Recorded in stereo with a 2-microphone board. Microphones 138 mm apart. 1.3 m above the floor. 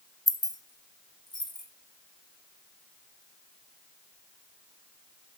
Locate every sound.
0.3 s keys jangling: 25° left (ahead or behind), 0.6 m; by 1.7 s 35° left (ahead or behind), 1.3 m